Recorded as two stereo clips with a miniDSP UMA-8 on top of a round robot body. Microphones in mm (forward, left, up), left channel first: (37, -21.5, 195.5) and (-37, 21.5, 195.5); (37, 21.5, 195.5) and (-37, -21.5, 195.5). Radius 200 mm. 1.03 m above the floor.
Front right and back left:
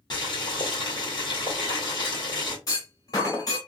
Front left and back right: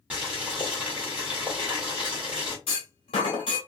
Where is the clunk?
20° left, 1.2 m.